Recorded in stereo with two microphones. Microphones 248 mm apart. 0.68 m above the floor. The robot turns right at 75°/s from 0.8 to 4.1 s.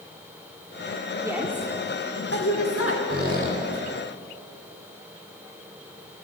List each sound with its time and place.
1.2 s a woman speaking: 15° right, 1.5 m; by 3.0 s 115° left, 1.5 m
3.1 s a squeak: 85° right, 1.6 m; by 3.6 s 45° right, 1.6 m